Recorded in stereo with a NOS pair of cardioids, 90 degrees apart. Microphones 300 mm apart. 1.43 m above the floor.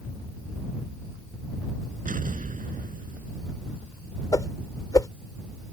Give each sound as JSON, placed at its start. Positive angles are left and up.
{"t": 2.0, "sound": "an explosion", "azimuth_deg": -25}
{"t": 4.3, "sound": "a whoosh", "azimuth_deg": 10}